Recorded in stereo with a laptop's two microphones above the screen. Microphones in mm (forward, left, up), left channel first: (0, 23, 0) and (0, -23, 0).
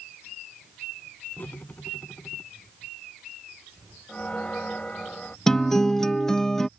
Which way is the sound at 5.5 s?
10° left (ahead or behind).